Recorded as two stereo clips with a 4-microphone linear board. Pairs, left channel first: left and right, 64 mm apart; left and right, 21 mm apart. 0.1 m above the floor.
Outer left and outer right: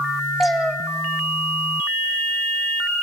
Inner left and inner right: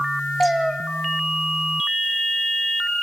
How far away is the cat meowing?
About 1.9 m.